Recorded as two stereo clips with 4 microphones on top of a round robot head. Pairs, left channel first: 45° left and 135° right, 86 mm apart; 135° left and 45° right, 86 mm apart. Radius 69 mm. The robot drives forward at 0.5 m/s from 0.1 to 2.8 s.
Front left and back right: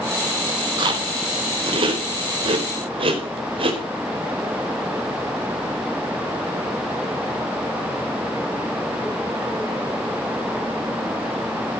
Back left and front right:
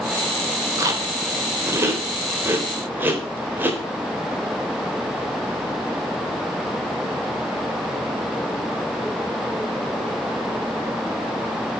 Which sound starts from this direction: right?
Chewing, at 0.8 s.